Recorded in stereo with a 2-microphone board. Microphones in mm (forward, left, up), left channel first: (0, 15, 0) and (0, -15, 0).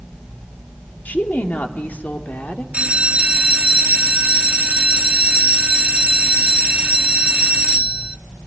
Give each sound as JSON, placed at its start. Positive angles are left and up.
{"t": 1.1, "sound": "a woman speaking", "side_deg": 80, "distance_m": 2.5}
{"t": 2.7, "sound": "a bell", "side_deg": -45, "distance_m": 0.7}